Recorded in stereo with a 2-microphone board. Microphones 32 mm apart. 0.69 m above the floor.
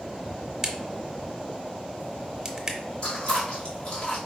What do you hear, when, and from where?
0.6 s a crack: 25° right (ahead or behind), 0.8 m
3.0 s chewing: 35° left (ahead or behind), 1.6 m